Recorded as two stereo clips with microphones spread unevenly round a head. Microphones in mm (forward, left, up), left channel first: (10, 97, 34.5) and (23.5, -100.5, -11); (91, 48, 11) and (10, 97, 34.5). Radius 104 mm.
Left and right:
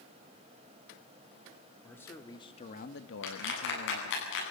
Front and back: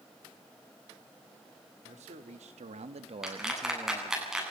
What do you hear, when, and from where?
1.8 s a man speaking: straight behind, 2.5 m; by 4.2 s 65° left, 1.8 m
3.2 s a clap: 65° left, 9.5 m